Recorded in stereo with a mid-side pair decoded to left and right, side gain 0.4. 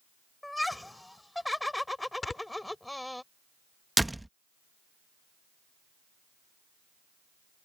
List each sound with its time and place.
0.4 s laughter: 10° left
2.2 s snoring: 40° left
4.0 s a door slam: 10° right